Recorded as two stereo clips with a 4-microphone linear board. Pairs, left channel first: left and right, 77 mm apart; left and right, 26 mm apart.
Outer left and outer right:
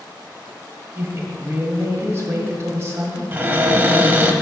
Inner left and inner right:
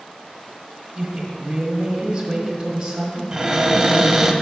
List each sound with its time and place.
0.9 s a woman speaking: 35° right (ahead or behind), 1.3 m
3.3 s a cupboard door: 25° right (ahead or behind), 0.6 m